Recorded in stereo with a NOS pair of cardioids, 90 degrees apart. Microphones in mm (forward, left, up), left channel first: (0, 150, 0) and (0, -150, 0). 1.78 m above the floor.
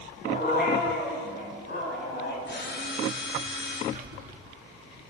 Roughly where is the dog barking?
Ahead left.